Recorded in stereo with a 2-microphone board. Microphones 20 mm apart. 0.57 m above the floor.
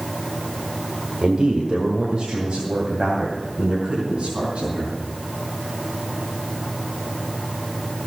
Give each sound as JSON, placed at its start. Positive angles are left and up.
{"t": 1.2, "sound": "a man speaking", "side_deg": -60, "distance_m": 1.5}